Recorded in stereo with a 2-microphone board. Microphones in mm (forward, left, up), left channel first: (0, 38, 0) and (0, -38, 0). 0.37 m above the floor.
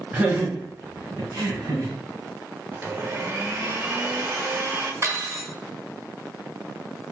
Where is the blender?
25° right (ahead or behind), 0.7 m.